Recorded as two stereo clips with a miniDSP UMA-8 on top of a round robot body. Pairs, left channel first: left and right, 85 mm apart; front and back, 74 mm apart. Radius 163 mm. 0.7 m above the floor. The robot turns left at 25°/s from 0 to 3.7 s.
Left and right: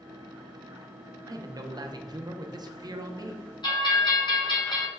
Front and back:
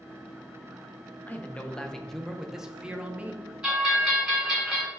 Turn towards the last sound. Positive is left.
turn(degrees=100)